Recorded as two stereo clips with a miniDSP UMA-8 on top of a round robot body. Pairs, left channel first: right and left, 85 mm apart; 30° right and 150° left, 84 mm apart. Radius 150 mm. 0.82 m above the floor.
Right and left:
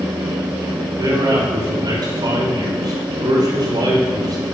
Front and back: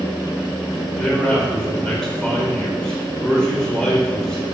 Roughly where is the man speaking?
Ahead left.